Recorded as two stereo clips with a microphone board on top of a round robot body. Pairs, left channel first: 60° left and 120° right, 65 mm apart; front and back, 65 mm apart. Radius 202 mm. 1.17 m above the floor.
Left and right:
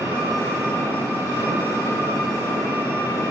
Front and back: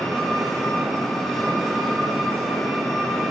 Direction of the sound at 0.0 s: 80° left.